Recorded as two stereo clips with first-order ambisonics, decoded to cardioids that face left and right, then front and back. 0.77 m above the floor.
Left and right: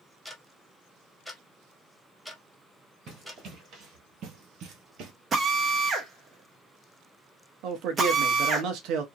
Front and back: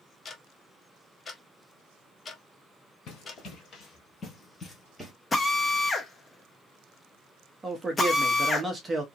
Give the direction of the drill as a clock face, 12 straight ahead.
2 o'clock.